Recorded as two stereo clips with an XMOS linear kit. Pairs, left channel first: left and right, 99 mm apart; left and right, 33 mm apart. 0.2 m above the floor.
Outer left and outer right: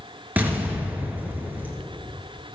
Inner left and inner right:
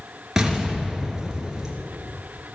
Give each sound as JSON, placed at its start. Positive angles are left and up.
{"t": 0.4, "sound": "an explosion", "side_deg": -15, "distance_m": 2.0}